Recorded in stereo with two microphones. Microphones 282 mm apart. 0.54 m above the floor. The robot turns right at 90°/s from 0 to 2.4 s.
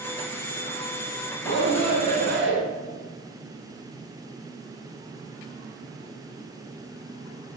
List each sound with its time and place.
1.4 s a shout: 140° left, 6 m; by 2.6 s 130° right, 6 m